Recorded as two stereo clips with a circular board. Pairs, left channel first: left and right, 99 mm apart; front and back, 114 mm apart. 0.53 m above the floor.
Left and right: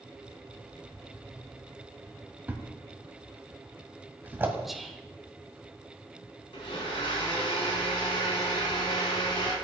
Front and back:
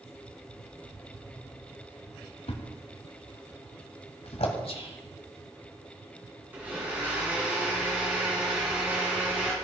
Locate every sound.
2.5 s a thud: 20° right, 1.8 m
4.7 s whispering: straight ahead, 1.5 m
6.5 s a blender: 105° left, 5 m